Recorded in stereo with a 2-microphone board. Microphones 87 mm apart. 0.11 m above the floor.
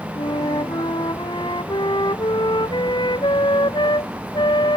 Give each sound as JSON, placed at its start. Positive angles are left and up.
{"t": 0.1, "sound": "a flute", "side_deg": 60}